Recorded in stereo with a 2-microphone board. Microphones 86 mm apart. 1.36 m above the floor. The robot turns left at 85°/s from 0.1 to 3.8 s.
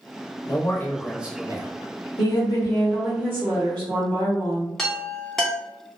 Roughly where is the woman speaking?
Left.